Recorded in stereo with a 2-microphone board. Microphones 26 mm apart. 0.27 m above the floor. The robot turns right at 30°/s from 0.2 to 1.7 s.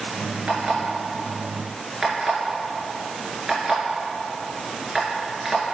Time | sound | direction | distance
0.5 | an alarm clock | 60° right (ahead or behind) | 2.5 m